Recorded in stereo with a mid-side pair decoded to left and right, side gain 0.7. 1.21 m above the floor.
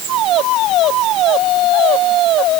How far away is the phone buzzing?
I don't hear a phone buzzing.